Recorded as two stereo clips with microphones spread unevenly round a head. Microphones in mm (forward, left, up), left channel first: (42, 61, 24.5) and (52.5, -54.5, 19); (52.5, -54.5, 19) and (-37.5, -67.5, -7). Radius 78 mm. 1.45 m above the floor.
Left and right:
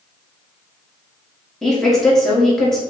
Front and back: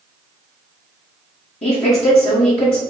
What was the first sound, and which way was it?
A woman speaking, 10° left.